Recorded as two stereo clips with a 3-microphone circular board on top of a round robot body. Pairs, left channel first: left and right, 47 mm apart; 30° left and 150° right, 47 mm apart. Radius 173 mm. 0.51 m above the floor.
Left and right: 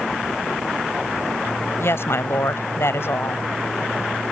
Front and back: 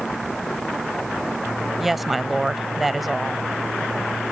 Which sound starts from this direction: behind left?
A woman speaking, at 1.8 s.